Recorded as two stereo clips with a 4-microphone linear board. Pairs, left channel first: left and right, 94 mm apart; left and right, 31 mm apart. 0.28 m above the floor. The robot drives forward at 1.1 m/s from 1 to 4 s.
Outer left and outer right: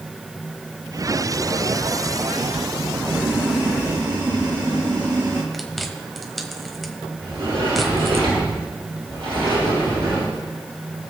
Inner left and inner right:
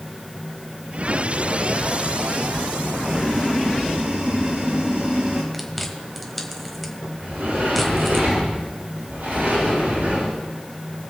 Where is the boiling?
40° right (ahead or behind), 3.5 m; by 5.4 s 55° right (ahead or behind), 2.5 m.